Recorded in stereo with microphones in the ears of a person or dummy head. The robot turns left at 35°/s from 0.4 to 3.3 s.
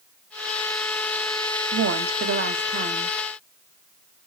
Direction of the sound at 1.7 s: 100° right.